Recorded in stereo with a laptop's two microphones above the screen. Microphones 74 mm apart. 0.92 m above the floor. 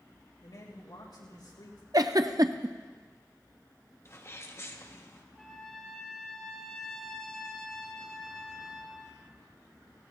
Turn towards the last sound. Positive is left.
turn(degrees=10)  # may be behind; listen again after turning